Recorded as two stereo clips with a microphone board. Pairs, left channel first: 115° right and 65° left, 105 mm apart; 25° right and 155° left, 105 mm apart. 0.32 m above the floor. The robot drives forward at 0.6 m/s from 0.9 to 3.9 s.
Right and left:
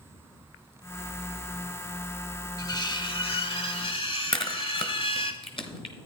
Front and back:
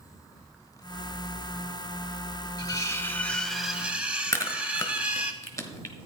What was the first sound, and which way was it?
Cutlery clinking, 65° right.